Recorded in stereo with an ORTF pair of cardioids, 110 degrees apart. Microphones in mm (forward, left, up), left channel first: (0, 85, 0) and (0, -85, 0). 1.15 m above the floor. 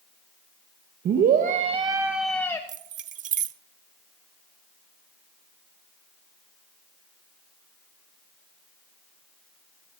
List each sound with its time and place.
1.1 s a scream: 65° right, 1.3 m; by 2.6 s 15° left, 1.1 m
2.7 s keys jangling: 50° right, 0.6 m